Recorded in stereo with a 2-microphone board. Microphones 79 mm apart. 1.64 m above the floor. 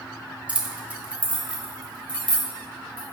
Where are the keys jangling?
15° right (ahead or behind), 0.8 m.